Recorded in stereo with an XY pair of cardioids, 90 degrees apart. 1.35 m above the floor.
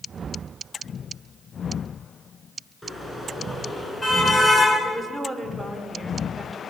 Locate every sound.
2.8 s a car horn: 5° left, 10 m; by 4.7 s 20° left, 9 m
4.8 s a woman speaking: 5° right, 5.5 m